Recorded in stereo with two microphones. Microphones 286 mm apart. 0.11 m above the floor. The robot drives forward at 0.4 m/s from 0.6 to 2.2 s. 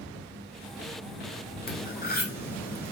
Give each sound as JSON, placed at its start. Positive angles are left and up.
{"t": 1.7, "sound": "cutlery clinking", "side_deg": 30, "distance_m": 1.0}